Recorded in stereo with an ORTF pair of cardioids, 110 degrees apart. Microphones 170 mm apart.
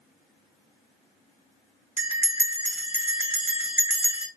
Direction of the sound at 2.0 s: 10° right.